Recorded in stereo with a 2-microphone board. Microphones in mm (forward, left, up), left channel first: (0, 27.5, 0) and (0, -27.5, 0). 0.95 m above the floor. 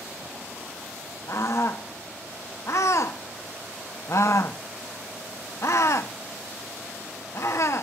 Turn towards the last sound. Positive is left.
turn(degrees=60)  # may be behind; listen again after turning